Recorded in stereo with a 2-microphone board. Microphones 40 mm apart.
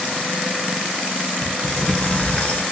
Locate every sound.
1.4 s a sliding door: 35° left (ahead or behind), 1.0 m